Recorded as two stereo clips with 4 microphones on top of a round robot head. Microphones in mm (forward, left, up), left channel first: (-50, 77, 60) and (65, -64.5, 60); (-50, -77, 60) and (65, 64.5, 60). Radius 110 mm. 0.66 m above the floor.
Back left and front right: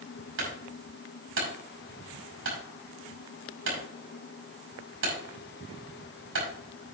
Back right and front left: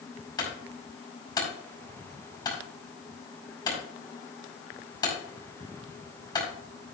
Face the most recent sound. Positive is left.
turn(degrees=-60)